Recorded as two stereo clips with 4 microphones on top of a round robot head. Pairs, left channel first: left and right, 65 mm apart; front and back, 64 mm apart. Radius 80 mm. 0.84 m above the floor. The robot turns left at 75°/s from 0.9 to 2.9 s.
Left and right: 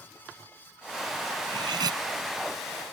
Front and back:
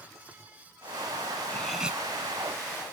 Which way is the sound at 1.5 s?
75° right.